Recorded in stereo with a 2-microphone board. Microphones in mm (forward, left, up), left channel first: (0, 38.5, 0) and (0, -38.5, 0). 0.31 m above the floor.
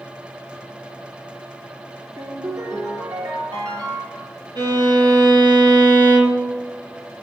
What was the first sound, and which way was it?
A ringtone, 55° right (ahead or behind).